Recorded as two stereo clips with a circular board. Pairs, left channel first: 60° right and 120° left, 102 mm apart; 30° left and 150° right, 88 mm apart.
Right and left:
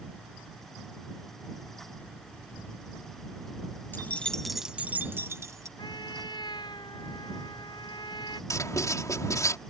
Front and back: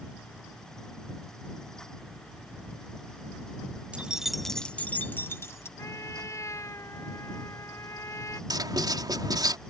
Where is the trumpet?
20° right.